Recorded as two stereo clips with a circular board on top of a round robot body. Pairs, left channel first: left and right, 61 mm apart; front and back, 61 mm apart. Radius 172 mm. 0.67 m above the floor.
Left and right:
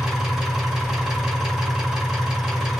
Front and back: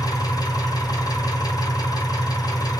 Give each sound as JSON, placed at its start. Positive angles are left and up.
{"t": 0.0, "sound": "an engine running", "azimuth_deg": -10, "distance_m": 1.7}